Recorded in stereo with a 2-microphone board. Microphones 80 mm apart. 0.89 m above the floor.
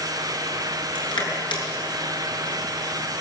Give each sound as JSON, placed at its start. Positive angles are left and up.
{"t": 0.9, "sound": "crushing", "side_deg": 85, "distance_m": 8.0}